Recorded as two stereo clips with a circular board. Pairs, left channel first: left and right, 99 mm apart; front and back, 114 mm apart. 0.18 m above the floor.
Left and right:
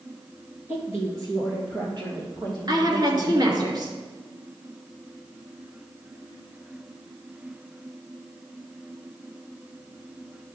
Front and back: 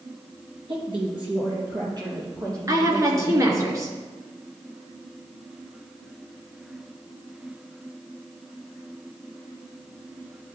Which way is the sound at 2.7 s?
125° right.